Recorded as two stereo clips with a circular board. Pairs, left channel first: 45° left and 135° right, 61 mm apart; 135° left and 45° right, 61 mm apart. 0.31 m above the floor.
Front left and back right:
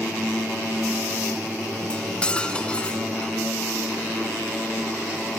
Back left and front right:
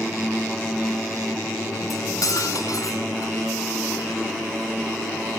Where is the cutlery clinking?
115° left, 1.9 m.